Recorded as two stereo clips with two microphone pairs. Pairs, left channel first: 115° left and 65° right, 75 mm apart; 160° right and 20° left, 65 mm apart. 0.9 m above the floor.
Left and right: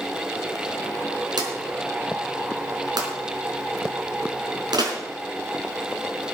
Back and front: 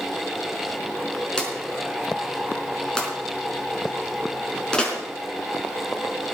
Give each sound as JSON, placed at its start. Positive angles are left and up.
{"t": 1.4, "sound": "a drawer", "azimuth_deg": -80, "distance_m": 4.0}